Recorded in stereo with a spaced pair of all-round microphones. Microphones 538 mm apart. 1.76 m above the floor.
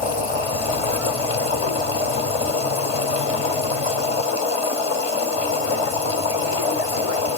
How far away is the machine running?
About 1.0 m.